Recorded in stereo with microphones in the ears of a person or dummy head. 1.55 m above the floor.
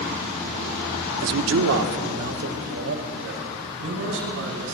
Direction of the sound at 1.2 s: 65° right (ahead or behind).